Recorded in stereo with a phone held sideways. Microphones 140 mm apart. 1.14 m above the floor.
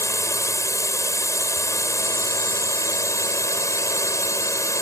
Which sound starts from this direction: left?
A drone, at 0.0 s.